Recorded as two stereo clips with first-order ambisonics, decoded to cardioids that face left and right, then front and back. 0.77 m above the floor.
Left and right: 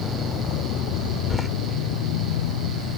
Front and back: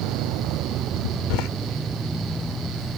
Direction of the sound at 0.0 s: 150° left.